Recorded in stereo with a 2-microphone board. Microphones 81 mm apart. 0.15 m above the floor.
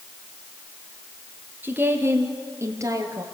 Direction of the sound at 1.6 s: 20° right (ahead or behind).